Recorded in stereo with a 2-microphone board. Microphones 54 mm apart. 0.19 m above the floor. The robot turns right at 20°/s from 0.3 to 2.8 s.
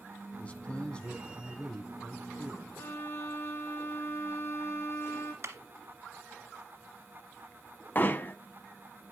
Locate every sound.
0.4 s a man speaking: 140° left, 1.3 m; by 2.8 s 175° right, 1.3 m
2.8 s a violin: 50° left (ahead or behind), 1.4 m
5.4 s a clap: 55° right (ahead or behind), 1.8 m
8.0 s hammering: 35° left (ahead or behind), 0.6 m